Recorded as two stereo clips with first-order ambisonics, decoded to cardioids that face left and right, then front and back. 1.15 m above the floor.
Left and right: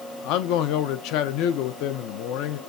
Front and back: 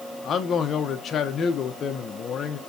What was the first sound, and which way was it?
A man speaking, 60° left.